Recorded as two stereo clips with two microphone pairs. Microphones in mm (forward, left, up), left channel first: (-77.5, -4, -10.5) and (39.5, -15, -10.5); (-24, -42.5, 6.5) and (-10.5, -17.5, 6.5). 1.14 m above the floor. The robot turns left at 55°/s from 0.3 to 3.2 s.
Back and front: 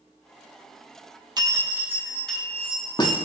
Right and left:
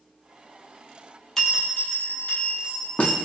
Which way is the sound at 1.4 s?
50° right.